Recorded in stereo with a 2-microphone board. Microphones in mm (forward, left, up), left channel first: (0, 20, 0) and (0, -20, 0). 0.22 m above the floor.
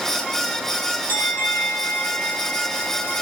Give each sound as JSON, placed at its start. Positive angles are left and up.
{"t": 1.1, "sound": "a bell", "side_deg": 50, "distance_m": 6.5}